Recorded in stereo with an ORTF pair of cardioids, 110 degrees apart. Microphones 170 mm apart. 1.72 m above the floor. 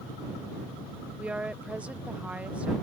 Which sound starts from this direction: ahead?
A woman speaking, at 1.2 s.